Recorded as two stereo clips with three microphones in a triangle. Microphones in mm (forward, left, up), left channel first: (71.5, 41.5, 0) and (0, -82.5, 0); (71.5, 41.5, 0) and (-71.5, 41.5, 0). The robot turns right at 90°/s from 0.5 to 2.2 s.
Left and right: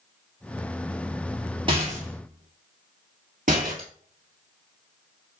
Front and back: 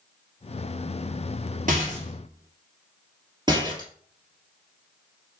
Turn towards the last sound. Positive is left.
turn(degrees=-125)